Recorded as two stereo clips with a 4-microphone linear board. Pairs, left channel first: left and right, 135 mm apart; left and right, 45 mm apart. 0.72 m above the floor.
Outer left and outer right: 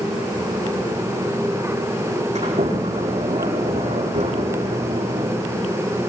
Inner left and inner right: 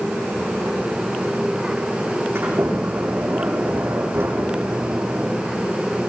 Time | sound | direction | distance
2.4 | a sliding door | 60° right (ahead or behind) | 7 m